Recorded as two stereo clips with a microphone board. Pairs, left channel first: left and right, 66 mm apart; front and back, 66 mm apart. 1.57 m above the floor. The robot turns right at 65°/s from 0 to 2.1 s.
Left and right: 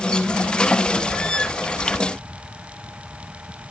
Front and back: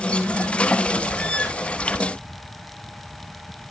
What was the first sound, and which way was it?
Only background noise.